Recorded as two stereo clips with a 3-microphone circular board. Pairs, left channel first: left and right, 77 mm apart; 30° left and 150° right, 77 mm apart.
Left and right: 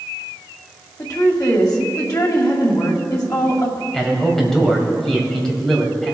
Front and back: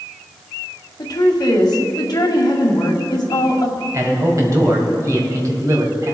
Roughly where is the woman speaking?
Ahead left.